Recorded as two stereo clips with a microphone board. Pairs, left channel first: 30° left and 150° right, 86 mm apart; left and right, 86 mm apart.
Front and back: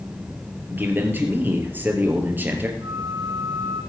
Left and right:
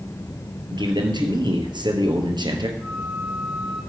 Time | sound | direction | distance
0.7 | a man speaking | 85° right | 3 m
2.8 | a flute | 170° right | 4 m